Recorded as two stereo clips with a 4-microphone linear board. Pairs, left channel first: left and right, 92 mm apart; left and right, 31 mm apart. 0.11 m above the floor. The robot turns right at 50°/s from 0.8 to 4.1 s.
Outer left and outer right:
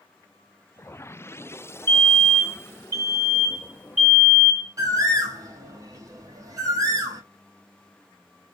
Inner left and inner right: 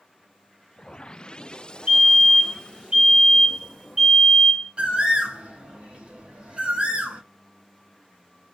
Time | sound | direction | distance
1.9 | a fire alarm | 145° right | 2.5 m
4.8 | a bird | 40° right (ahead or behind) | 1.2 m